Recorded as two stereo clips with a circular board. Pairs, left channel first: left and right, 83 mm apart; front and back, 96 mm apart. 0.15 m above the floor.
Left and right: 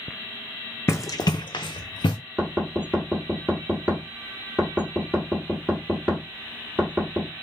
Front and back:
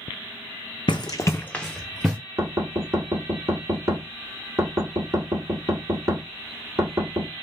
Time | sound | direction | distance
0.9 | running footsteps | 30° left | 0.5 m
2.4 | knocking | 150° right | 1.2 m